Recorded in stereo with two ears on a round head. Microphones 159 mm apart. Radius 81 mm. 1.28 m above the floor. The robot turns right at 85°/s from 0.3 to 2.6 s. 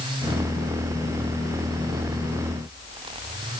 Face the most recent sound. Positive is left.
No sound to turn to.